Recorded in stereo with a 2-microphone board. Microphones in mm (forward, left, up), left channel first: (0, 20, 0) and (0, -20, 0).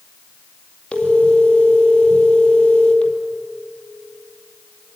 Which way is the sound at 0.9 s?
25° left (ahead or behind).